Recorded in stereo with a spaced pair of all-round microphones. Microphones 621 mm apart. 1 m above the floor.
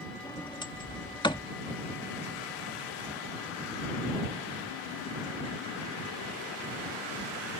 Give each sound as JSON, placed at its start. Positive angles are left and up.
{"t": 0.2, "sound": "a sliding door", "side_deg": 5}